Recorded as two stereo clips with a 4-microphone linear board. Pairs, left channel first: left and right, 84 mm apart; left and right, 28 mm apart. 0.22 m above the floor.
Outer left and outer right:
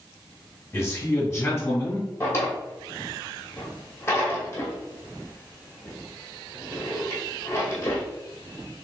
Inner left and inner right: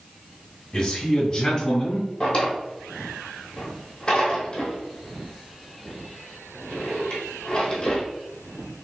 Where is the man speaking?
30° left (ahead or behind), 1.9 m.